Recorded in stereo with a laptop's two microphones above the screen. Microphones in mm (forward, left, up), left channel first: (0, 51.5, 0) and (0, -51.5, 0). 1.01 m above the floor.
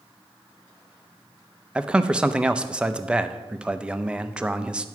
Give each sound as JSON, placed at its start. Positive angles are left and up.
{"t": 1.8, "sound": "a man speaking", "side_deg": -10, "distance_m": 0.6}